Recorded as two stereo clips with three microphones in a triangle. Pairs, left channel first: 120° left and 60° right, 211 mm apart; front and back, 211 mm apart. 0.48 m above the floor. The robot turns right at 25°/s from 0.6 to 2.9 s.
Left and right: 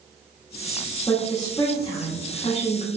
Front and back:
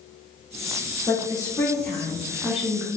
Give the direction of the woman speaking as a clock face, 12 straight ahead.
10 o'clock.